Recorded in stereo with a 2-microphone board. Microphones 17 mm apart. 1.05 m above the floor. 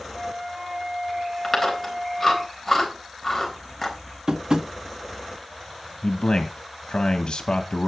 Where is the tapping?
55° right (ahead or behind), 1.5 m.